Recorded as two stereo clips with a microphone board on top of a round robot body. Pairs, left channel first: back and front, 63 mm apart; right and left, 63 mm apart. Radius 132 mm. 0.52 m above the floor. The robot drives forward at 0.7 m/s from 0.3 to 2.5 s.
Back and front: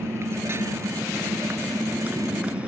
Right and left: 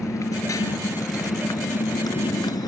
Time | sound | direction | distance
0.0 | a motorcycle | 50° right | ?